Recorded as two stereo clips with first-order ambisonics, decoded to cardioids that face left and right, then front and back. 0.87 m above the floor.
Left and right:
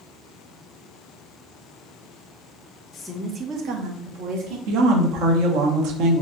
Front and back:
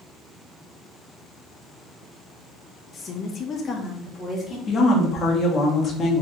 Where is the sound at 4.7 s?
65° right, 1.0 m.